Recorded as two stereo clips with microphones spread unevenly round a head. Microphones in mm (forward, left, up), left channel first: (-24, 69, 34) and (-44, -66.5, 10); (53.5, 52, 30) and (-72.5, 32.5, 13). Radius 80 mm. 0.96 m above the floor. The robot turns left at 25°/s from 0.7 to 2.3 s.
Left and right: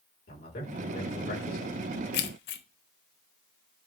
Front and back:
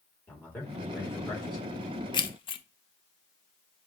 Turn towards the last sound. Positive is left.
turn(degrees=65)